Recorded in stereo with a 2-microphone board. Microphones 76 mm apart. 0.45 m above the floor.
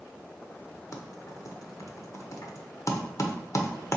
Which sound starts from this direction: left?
Typing on a keyboard, at 0.9 s.